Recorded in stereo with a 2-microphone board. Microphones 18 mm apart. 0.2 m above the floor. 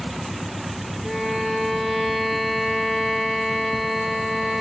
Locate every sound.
1.0 s a violin: 15° right (ahead or behind), 2 m